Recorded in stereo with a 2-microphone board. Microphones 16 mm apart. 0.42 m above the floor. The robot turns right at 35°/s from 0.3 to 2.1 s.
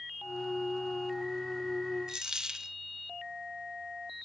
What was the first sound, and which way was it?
A dropped coin, 40° right (ahead or behind).